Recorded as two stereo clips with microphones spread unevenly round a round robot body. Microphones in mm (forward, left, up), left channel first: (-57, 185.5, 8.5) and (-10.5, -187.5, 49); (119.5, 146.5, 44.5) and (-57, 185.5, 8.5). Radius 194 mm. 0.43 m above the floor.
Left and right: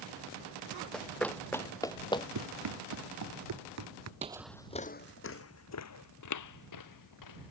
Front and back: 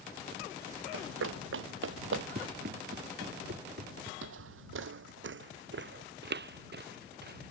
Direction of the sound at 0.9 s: 175° right.